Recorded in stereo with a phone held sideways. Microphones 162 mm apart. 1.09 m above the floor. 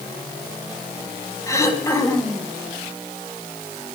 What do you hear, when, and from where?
1.5 s throat clearing: 20° left (ahead or behind), 3 m